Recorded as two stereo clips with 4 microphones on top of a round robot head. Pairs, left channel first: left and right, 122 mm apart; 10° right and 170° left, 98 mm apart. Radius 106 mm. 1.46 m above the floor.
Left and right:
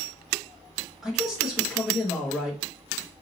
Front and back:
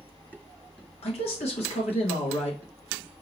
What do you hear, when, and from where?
1.0 s a man speaking: 5° right, 1.6 m